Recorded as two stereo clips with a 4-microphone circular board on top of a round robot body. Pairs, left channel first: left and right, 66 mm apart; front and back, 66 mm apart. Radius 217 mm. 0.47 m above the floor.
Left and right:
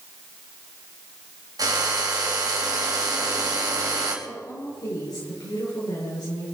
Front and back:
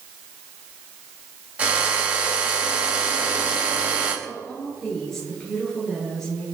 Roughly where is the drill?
Right.